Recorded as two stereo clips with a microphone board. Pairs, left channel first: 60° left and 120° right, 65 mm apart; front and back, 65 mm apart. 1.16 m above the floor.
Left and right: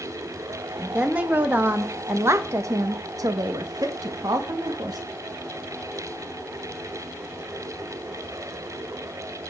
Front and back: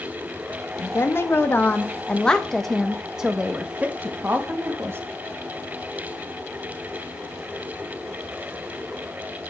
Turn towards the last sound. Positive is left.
turn(degrees=-125)